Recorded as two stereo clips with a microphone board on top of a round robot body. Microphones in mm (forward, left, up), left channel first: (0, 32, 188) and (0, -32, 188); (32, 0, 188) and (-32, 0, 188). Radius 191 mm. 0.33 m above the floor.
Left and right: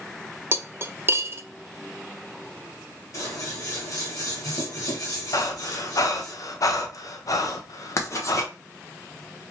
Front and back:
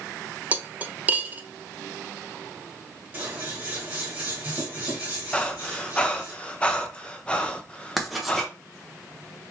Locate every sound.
0.5 s cutlery clinking: 125° right, 0.6 m
3.1 s scissors: 120° left, 1.5 m
5.3 s breathing: 70° left, 0.6 m
8.0 s writing: 90° left, 1.1 m